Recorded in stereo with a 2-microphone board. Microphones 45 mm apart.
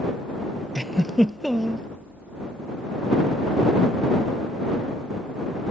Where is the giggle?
Centre (ahead or behind).